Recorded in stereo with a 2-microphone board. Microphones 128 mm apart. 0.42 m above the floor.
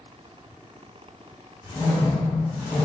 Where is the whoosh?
Centre (ahead or behind), 1.7 m.